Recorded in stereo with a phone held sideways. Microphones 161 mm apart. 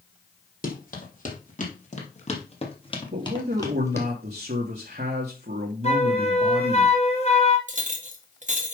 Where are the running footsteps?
60° left (ahead or behind), 3 m; by 4.1 s 15° left (ahead or behind), 2 m.